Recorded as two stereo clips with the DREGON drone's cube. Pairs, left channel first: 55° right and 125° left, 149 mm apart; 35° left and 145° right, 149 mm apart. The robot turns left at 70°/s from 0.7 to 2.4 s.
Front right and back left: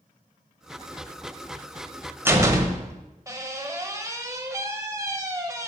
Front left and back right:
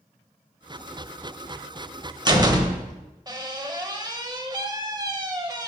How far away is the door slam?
About 0.8 m.